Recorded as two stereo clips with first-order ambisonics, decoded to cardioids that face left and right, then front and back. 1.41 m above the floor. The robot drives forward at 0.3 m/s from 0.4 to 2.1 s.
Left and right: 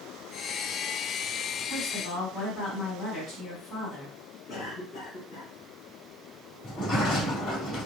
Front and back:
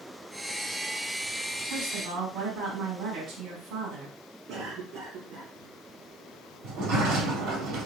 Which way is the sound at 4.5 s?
150° left.